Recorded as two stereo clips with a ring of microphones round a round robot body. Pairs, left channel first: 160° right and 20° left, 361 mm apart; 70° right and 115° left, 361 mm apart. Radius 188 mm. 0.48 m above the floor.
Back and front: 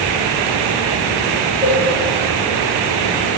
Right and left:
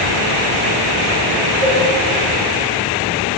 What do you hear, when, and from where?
1.6 s a cowbell: 95° left, 6 m